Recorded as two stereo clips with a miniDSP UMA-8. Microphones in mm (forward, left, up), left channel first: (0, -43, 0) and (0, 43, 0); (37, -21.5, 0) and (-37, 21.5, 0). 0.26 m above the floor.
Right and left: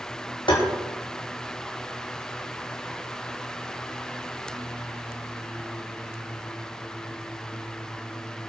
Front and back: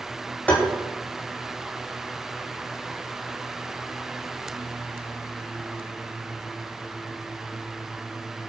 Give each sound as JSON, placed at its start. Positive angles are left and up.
{"t": 0.5, "sound": "tapping", "azimuth_deg": -105, "distance_m": 7.0}